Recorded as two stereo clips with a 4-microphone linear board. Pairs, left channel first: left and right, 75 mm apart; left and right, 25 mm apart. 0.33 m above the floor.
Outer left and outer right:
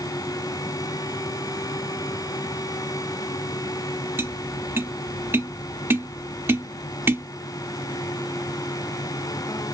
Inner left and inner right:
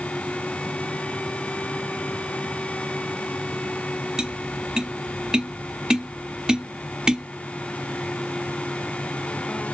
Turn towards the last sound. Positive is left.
turn(degrees=-30)  # may be behind; listen again after turning